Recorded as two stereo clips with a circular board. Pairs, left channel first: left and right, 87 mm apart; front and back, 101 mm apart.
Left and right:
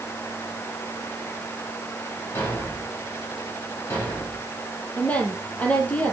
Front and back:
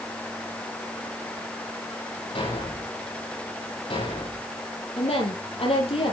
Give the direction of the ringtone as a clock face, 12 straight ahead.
I don't hear a ringtone.